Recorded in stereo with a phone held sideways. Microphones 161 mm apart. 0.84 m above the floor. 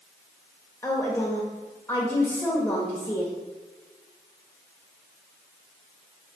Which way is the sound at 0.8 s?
15° left (ahead or behind).